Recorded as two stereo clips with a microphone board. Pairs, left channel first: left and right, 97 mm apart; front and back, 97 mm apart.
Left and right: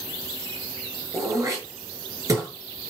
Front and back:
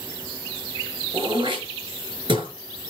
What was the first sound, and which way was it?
Throat clearing, 145° right.